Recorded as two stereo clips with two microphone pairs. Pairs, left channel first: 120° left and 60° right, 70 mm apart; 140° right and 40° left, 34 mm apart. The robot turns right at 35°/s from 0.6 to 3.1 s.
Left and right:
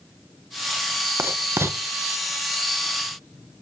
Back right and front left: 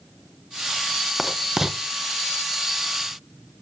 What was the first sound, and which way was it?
Writing, 55° right.